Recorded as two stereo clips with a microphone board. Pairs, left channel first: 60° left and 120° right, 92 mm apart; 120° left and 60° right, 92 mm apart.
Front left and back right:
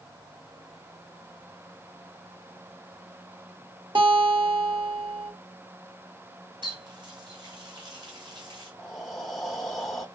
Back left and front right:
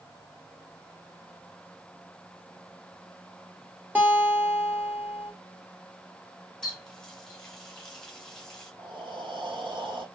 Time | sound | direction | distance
4.0 | a guitar | 130° right | 1.7 m
6.6 | a running tap | 155° right | 2.0 m
8.8 | breathing | 25° right | 0.9 m